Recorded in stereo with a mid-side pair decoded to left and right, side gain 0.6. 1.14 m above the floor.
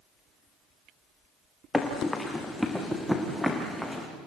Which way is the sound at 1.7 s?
15° left.